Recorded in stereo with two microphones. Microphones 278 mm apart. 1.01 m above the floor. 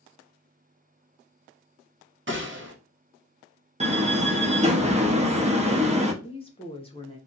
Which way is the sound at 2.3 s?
45° right (ahead or behind).